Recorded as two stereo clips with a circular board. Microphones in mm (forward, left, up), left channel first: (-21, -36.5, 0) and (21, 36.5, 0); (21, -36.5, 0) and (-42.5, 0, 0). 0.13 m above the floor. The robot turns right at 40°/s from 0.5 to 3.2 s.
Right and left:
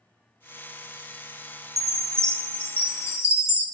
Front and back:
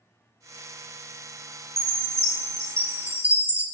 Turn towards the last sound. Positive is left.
turn(degrees=-155)